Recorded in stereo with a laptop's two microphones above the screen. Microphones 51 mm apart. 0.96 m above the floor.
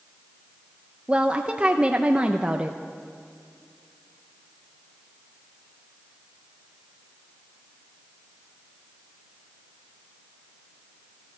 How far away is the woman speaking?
About 0.5 m.